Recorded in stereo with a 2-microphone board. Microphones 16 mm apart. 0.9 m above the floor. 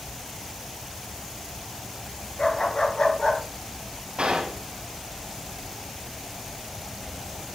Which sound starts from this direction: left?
A dog barking, at 2.4 s.